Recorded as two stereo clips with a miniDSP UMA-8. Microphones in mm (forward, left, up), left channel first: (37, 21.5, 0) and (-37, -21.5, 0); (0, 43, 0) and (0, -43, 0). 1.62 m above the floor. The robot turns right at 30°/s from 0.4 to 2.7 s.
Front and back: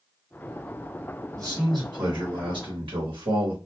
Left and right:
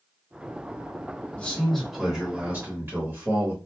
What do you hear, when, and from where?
1.4 s a man speaking: 165° left, 1.1 m; by 3.6 s 155° right, 1.1 m